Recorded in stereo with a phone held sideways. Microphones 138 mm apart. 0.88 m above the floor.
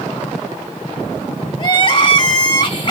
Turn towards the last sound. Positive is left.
turn(degrees=35)  # may be behind; listen again after turning